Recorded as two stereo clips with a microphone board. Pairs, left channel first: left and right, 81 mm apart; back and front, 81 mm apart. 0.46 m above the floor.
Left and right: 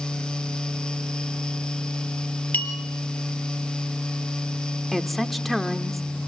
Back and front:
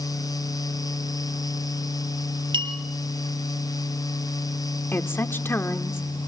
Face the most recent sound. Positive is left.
turn(degrees=175)